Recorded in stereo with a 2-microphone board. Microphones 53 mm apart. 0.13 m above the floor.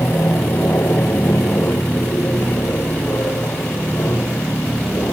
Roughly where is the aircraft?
Left.